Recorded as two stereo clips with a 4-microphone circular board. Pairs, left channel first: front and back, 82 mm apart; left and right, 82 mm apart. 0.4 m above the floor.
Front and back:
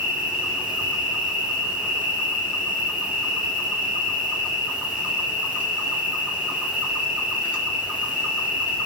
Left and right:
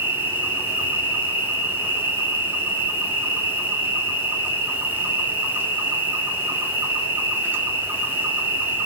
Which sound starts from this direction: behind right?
An insect, at 0.0 s.